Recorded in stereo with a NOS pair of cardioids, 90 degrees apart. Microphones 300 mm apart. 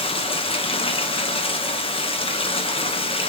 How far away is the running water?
About 1.1 m.